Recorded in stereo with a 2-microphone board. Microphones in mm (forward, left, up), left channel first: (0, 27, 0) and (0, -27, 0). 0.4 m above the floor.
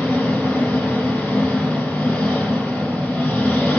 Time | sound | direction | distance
0.0 | an engine running | 20° left (ahead or behind) | 1.4 m